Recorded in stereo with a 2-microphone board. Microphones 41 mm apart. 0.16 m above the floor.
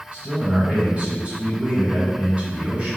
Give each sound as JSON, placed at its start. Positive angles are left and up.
{"t": 0.1, "sound": "a man speaking", "side_deg": -25, "distance_m": 1.9}